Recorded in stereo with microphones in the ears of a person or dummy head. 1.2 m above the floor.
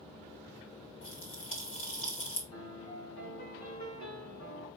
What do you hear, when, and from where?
1.0 s a pop: 45° left (ahead or behind), 2 m
2.5 s a piano: 60° left (ahead or behind), 5.5 m